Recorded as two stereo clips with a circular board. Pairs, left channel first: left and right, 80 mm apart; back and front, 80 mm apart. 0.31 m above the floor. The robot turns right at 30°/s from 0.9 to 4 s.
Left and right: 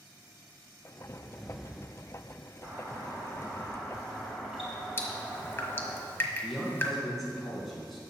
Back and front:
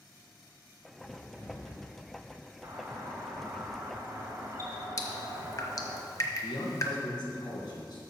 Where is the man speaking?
Straight behind, 3 m.